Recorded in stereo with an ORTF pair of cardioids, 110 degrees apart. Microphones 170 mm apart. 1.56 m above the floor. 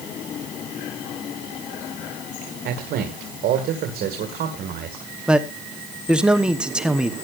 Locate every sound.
2.6 s a man speaking: 65° right, 2 m
5.3 s a man speaking: 5° right, 1.0 m